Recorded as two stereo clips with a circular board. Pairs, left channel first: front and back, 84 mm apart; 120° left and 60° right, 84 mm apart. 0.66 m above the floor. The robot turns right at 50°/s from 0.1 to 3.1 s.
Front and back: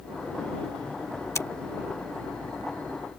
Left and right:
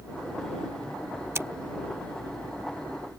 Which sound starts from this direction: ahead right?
Scissors, at 1.4 s.